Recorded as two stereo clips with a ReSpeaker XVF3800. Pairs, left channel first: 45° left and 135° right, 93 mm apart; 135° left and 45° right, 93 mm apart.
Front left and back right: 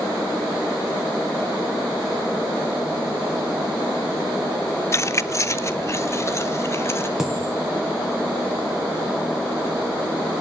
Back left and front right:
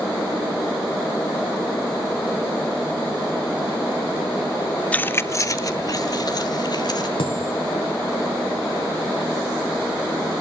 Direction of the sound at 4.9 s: 70° left.